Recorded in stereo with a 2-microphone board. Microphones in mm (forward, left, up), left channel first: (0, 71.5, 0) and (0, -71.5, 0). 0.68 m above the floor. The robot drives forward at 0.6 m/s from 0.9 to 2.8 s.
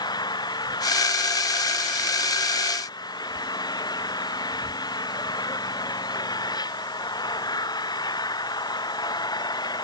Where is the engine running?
30° left (ahead or behind).